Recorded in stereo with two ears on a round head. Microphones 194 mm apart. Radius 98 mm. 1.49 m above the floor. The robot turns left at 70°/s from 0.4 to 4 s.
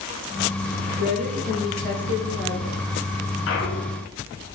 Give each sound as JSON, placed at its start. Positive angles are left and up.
{"t": 1.0, "sound": "a woman speaking", "azimuth_deg": -130, "distance_m": 1.5}
{"t": 3.5, "sound": "a clunk", "azimuth_deg": 75, "distance_m": 0.6}